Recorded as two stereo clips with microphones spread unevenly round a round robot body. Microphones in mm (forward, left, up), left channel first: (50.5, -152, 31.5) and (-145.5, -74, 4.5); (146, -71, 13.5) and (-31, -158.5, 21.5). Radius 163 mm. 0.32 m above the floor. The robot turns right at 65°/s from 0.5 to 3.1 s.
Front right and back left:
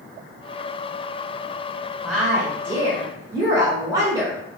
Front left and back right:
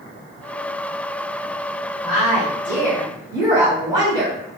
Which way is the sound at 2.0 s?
90° left.